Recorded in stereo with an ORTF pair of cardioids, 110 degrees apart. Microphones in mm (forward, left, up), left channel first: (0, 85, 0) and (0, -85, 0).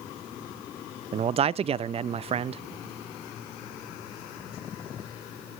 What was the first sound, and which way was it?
A man speaking, 35° right.